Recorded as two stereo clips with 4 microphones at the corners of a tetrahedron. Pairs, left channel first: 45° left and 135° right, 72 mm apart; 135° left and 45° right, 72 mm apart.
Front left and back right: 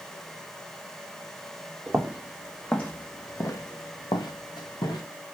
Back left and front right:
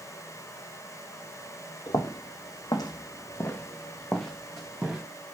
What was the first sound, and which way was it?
Footsteps, 145° left.